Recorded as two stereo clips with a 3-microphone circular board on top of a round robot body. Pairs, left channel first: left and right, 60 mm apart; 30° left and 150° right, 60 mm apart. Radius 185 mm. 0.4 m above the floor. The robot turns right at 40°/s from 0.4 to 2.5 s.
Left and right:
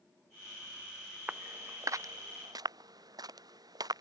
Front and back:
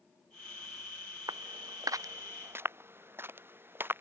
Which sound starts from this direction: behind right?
Footsteps, at 1.3 s.